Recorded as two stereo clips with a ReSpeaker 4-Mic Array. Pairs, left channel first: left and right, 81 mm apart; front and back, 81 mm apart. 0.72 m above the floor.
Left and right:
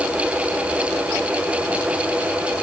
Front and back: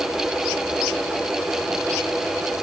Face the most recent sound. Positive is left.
No sound to turn to.